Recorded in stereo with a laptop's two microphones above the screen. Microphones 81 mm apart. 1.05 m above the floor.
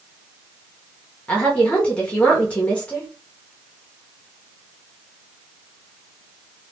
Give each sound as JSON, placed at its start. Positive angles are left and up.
{"t": 1.3, "sound": "a woman speaking", "side_deg": 15, "distance_m": 0.7}